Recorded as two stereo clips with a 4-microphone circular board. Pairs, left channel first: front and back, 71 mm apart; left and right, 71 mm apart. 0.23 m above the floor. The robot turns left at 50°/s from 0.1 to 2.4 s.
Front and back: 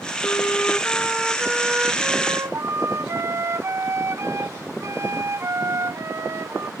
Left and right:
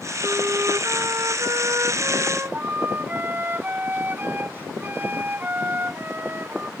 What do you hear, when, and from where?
0.2 s a flute: 35° right; by 6.7 s 145° right